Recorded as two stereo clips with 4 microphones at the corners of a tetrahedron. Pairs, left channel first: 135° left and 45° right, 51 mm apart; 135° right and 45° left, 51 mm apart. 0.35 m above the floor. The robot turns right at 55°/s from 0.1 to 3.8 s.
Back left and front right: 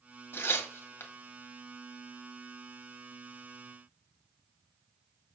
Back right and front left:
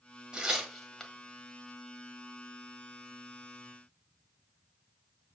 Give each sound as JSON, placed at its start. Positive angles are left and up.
{"t": 0.3, "sound": "tearing paper", "azimuth_deg": 110, "distance_m": 1.7}